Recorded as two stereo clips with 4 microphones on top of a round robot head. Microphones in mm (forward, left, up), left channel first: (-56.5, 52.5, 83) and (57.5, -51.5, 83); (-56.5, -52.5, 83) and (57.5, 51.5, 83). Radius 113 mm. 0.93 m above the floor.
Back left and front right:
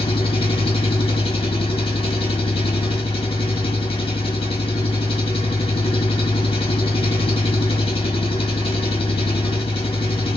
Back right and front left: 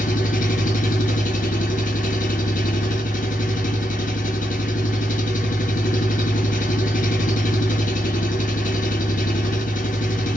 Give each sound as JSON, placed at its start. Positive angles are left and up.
{"t": 0.0, "sound": "an engine running", "azimuth_deg": -170, "distance_m": 1.7}